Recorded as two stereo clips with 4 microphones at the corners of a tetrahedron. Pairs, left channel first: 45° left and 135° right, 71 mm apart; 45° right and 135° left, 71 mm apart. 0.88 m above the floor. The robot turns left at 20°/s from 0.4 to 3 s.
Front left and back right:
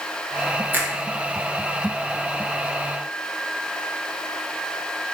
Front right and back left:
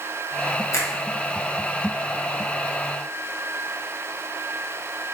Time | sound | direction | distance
0.7 | a finger snap | 75° right | 0.8 m